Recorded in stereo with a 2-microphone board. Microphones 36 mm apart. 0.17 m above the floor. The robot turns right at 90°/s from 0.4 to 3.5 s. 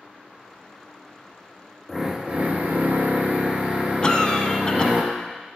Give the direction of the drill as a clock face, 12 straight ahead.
6 o'clock.